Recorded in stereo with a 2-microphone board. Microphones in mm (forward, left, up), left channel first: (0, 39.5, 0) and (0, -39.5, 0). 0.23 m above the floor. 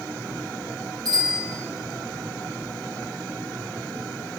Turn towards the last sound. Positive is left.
turn(degrees=-55)  # may be behind; listen again after turning